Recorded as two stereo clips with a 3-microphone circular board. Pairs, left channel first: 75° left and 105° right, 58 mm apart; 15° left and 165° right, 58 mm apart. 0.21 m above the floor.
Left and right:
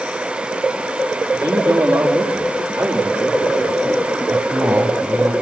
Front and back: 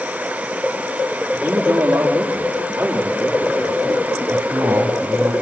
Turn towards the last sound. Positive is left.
turn(degrees=-130)